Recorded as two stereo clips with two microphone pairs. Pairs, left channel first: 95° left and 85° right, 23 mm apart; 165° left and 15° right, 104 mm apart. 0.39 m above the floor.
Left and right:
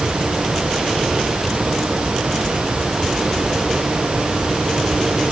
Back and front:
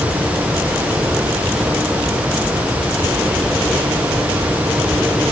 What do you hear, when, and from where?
Only background noise.